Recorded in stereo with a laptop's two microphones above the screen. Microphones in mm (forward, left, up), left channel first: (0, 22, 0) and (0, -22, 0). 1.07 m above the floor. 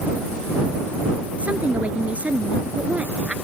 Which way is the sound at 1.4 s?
30° right (ahead or behind).